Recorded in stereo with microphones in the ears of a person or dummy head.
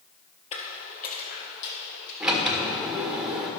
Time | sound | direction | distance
0.5 | footsteps | 35° left (ahead or behind) | 1.7 m
2.2 | a sliding door | 5° right (ahead or behind) | 1.5 m